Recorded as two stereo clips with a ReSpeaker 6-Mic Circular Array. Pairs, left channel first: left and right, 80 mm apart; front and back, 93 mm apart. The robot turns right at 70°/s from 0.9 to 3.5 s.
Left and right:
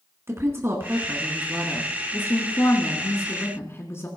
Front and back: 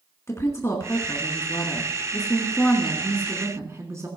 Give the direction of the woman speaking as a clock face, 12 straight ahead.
2 o'clock.